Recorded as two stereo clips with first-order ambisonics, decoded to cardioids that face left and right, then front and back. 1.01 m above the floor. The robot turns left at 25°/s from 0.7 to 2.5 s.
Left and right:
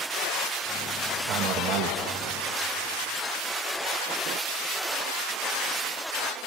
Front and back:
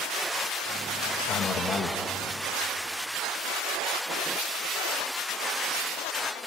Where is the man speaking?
50° right, 1.2 m; by 2.0 s 70° right, 1.2 m.